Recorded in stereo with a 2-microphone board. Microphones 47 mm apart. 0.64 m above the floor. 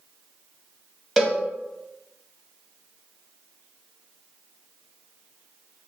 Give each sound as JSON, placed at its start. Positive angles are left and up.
{"t": 1.2, "sound": "a cowbell", "side_deg": -5, "distance_m": 0.9}